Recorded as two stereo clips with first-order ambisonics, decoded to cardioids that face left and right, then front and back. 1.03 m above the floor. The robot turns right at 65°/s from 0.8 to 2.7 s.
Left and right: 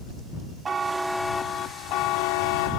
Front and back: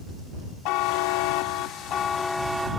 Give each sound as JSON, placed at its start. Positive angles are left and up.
{"t": 0.7, "sound": "a buzzer", "azimuth_deg": -20}